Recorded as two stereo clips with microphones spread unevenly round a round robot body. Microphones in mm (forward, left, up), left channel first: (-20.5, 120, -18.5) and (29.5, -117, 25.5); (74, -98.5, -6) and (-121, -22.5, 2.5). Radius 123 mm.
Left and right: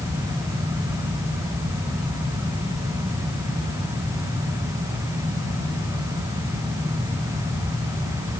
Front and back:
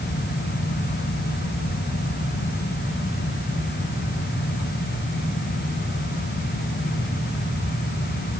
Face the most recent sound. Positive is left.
No sound to turn to.